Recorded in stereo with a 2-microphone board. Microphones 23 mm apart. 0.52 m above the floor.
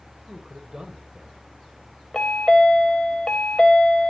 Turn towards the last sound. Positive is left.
turn(degrees=40)  # may be behind; listen again after turning